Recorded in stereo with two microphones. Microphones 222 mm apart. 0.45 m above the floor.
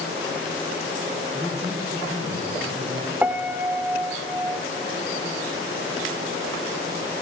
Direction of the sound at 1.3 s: 15° right (ahead or behind).